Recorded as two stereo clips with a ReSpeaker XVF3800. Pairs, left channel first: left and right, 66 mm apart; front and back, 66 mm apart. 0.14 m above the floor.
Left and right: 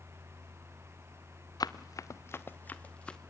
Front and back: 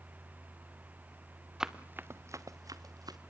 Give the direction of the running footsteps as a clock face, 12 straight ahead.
9 o'clock.